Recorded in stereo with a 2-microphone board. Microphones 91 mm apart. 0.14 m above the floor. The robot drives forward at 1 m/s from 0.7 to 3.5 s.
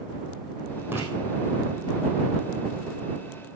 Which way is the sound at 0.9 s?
20° right (ahead or behind).